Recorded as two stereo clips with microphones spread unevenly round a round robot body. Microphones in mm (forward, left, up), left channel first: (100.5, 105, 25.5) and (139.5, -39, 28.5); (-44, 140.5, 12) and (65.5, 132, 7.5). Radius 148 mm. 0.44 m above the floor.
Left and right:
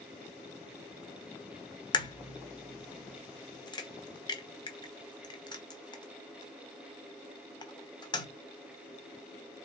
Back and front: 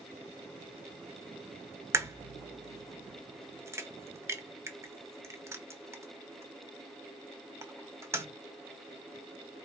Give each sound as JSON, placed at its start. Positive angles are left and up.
{"t": 1.9, "sound": "a crack", "azimuth_deg": 50, "distance_m": 1.1}